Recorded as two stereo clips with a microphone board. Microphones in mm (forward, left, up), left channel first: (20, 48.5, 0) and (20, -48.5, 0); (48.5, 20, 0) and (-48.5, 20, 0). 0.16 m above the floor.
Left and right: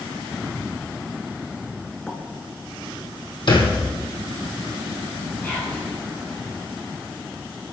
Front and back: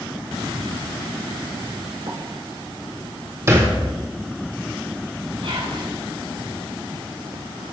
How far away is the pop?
About 1.6 m.